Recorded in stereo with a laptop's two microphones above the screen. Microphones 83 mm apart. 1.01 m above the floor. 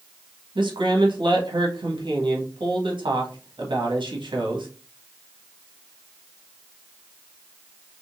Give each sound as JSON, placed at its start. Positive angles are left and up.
{"t": 0.6, "sound": "a man speaking", "side_deg": -75, "distance_m": 1.3}